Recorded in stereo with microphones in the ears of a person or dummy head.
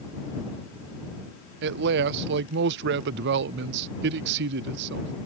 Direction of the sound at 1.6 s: 60° right (ahead or behind).